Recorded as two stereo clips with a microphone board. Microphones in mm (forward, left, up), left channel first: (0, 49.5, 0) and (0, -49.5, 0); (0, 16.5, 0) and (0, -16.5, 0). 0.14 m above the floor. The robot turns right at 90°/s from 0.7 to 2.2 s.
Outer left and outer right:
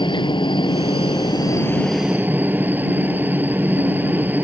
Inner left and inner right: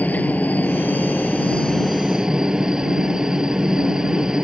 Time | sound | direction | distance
0.0 | a helicopter | 65° left | ?